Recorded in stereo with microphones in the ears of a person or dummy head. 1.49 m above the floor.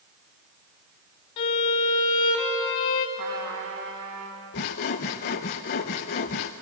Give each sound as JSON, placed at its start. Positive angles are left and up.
{"t": 1.4, "sound": "a violin", "side_deg": 25, "distance_m": 1.1}
{"t": 3.2, "sound": "a trumpet", "side_deg": -65, "distance_m": 4.0}
{"t": 4.5, "sound": "sawing", "side_deg": 30, "distance_m": 0.6}